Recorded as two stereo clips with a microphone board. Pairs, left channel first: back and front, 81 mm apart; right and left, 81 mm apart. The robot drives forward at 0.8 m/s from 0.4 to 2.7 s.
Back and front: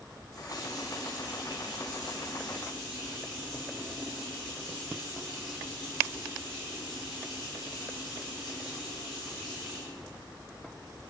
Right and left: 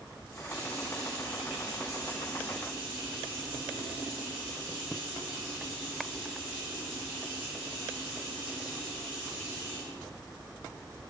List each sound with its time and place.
0.3 s a running tap: 140° left, 2 m; by 10.0 s 155° left, 4 m